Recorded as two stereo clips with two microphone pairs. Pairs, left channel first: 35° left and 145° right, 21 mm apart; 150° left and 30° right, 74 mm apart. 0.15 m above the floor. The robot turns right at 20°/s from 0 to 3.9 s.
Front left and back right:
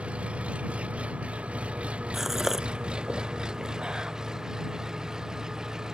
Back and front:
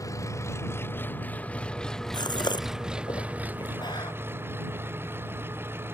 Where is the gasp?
135° left; by 4.1 s 170° left.